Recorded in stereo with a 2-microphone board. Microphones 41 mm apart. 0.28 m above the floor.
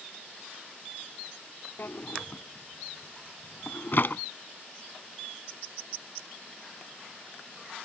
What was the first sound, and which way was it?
A drawer, 60° left (ahead or behind).